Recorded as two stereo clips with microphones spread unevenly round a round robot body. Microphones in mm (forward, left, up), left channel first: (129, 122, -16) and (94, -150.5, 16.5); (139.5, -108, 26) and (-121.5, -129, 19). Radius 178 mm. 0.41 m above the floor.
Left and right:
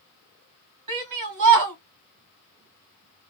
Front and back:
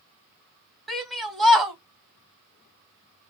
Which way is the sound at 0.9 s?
85° right.